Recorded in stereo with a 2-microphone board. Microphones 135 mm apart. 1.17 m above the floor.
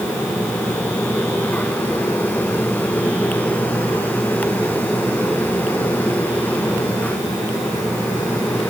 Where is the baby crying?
I don't hear a baby crying.